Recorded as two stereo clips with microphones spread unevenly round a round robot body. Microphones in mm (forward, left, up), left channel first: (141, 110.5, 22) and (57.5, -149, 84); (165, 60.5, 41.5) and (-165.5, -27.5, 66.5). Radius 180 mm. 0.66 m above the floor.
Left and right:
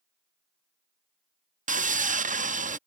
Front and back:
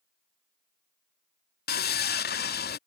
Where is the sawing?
40° right.